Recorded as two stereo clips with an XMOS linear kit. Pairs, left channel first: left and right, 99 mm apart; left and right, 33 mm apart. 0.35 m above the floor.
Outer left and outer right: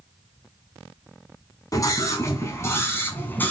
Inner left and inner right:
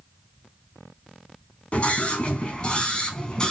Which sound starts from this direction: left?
A scream, at 1.7 s.